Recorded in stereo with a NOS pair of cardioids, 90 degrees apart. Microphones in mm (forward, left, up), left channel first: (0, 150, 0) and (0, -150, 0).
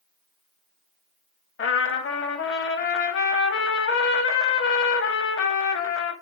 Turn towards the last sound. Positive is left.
turn(degrees=45)